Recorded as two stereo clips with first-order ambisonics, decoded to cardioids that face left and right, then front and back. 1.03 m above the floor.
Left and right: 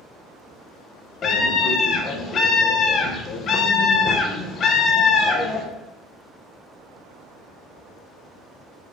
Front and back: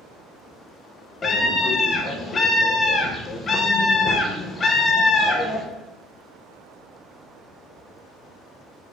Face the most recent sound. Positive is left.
turn(degrees=55)